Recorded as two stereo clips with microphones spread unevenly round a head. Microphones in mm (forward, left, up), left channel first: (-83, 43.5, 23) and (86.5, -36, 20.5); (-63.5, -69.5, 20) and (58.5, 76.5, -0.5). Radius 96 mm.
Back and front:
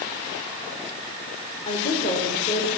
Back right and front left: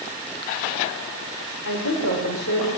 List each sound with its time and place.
1.6 s a woman speaking: 145° right, 4 m